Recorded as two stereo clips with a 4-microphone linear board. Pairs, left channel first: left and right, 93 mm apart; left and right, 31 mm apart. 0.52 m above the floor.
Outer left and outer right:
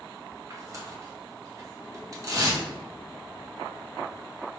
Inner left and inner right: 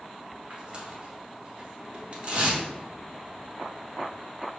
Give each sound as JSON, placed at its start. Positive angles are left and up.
{"t": 0.5, "sound": "tearing paper", "side_deg": -35, "distance_m": 0.8}